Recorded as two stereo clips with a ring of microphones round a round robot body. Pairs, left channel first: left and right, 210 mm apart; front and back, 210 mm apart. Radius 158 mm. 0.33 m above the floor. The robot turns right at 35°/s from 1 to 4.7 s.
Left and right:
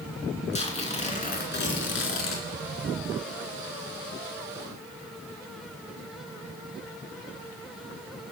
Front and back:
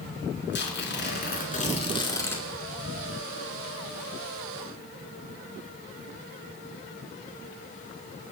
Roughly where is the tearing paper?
Ahead left.